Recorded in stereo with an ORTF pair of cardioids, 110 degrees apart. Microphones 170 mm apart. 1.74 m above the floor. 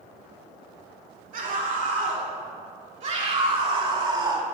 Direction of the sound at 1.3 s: 55° right.